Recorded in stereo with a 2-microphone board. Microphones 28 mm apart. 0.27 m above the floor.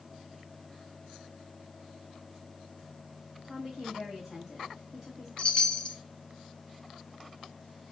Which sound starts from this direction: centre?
A woman speaking, at 3.4 s.